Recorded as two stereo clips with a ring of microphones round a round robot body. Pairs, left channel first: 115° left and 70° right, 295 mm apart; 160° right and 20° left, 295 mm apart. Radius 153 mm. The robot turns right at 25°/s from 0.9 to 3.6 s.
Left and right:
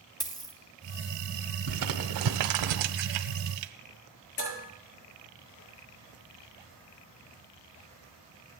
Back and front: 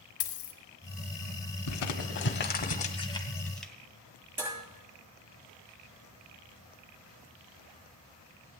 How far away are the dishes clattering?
About 6.5 m.